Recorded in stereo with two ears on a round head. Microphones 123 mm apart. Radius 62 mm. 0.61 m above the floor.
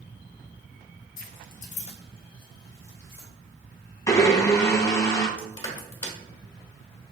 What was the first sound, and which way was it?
Keys jangling, 65° left (ahead or behind).